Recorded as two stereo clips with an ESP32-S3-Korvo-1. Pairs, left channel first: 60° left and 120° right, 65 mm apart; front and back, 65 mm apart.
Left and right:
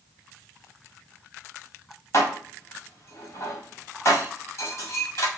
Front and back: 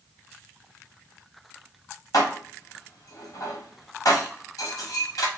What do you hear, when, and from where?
2.1 s dishes clattering: 15° left, 1.4 m